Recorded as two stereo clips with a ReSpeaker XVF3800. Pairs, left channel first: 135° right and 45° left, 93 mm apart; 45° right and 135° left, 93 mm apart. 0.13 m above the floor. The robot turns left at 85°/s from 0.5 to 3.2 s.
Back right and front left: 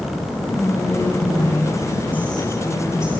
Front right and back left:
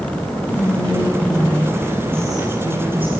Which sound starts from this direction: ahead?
Whispering, at 0.5 s.